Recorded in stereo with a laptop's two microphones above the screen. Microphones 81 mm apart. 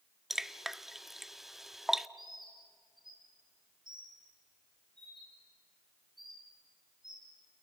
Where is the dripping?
5° right (ahead or behind), 0.7 m.